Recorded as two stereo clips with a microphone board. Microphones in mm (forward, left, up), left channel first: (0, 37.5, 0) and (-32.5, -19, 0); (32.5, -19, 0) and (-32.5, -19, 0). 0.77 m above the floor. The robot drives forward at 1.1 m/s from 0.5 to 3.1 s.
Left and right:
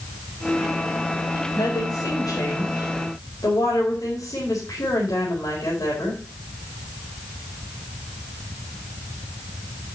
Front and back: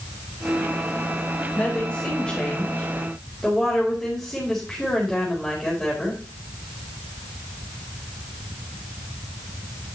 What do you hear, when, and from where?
1.6 s a woman speaking: 65° left, 4.5 m; by 6.2 s 85° left, 4 m